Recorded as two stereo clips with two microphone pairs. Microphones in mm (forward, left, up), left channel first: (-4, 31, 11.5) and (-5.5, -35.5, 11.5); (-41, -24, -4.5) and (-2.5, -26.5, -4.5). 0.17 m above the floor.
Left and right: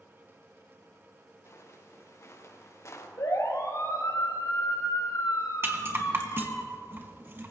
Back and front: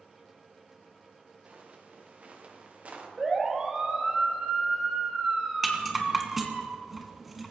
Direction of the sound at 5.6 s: 90° right.